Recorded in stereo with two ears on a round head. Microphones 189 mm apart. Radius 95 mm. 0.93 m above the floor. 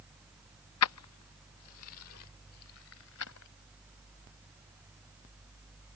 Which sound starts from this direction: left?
Keys jangling, at 0.8 s.